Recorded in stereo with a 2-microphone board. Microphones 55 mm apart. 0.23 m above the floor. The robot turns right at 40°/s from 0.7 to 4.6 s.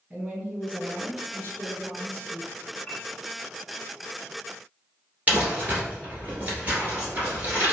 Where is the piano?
25° left (ahead or behind), 2.0 m; by 3.0 s 20° left (ahead or behind), 2.0 m.